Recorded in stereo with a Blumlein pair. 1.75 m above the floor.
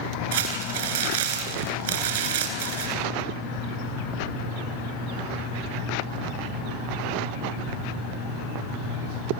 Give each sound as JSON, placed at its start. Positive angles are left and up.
{"t": 0.3, "sound": "crumpling", "azimuth_deg": -55, "distance_m": 4.0}